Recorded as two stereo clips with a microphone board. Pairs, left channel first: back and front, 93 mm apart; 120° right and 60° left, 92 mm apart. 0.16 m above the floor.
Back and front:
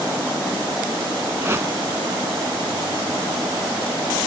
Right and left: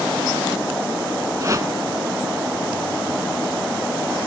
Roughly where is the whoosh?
Ahead left.